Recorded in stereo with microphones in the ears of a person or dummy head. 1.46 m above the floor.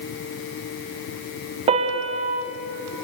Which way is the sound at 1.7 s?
35° right (ahead or behind).